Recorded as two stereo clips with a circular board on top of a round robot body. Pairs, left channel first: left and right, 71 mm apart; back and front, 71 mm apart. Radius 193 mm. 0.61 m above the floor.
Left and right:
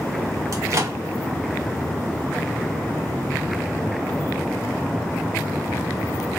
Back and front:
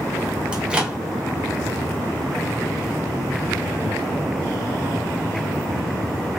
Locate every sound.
0.5 s a microwave: 70° right, 1.2 m